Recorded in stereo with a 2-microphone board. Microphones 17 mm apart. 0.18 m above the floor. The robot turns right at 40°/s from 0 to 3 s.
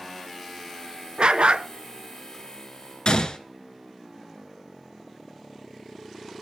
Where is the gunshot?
60° left (ahead or behind), 1.3 m.